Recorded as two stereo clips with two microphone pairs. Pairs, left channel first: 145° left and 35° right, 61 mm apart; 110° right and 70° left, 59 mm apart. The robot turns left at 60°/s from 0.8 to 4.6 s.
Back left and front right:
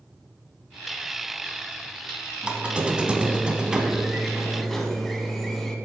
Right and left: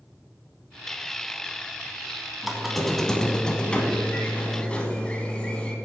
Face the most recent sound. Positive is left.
turn(degrees=-135)